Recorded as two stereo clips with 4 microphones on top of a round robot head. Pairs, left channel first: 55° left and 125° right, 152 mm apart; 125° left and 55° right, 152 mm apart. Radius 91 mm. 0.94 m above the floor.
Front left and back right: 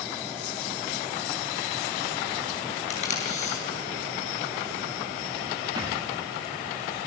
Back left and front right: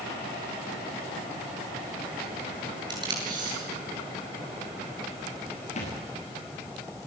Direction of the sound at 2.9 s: 10° left.